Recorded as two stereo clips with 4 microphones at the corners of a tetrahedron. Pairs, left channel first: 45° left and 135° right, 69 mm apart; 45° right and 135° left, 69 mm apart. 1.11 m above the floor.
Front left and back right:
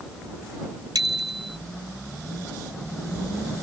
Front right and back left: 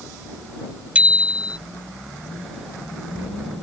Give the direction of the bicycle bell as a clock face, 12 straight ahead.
5 o'clock.